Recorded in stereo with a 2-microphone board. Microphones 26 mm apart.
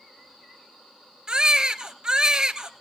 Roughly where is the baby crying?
Right.